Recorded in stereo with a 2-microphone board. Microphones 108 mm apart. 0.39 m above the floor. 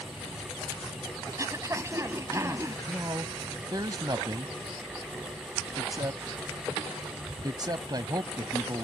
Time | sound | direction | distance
1.3 | throat clearing | 30° right (ahead or behind) | ?
2.9 | a man speaking | 40° right (ahead or behind) | ?